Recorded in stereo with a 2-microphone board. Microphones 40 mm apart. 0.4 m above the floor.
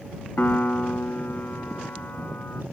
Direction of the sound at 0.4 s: 55° left (ahead or behind).